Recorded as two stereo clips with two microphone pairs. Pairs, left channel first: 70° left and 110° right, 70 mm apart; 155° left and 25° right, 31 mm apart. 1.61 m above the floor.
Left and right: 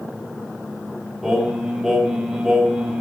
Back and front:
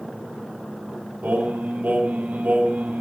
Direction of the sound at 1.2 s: 30° right.